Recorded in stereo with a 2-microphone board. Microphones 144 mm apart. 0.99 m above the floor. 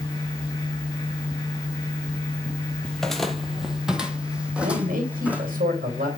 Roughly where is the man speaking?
Right.